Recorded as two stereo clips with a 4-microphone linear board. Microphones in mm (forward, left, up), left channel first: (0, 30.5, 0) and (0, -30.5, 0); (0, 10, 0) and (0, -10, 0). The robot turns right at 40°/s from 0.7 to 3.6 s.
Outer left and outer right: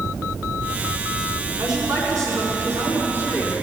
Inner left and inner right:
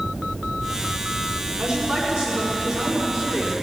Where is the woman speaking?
100° right, 5.5 m; by 3.5 s 20° right, 5.5 m.